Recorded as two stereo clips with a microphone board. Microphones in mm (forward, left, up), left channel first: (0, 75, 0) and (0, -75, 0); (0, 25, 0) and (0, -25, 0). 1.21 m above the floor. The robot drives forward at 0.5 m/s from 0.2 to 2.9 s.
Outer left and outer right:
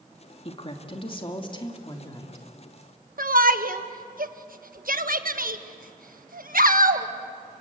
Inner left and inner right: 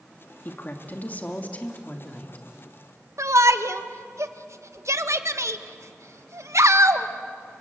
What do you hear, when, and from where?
0.5 s a woman speaking: 40° left (ahead or behind), 2 m; by 2.5 s 30° left (ahead or behind), 3 m
3.2 s a shout: 70° right (ahead or behind), 1.4 m